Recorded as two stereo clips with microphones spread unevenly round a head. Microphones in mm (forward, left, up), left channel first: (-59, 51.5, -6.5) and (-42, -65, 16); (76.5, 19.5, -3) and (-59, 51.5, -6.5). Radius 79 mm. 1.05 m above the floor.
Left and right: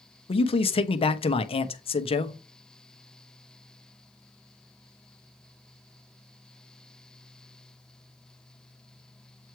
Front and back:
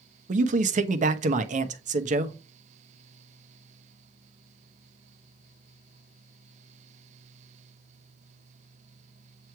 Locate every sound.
0.3 s a man speaking: 135° left, 1.0 m